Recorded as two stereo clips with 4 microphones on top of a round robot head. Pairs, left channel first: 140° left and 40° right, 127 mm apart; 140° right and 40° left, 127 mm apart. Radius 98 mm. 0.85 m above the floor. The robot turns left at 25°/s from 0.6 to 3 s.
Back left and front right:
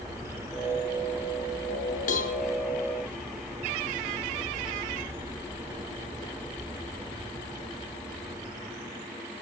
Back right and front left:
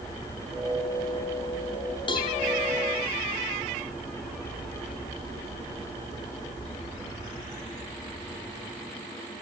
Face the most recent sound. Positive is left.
turn(degrees=145)